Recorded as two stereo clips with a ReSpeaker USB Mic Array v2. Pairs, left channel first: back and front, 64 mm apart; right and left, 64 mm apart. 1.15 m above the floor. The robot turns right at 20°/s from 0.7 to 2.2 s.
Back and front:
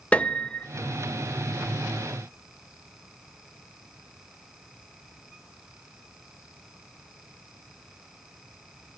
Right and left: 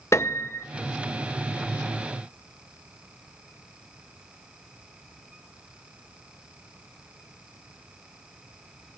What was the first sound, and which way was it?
A piano, 115° right.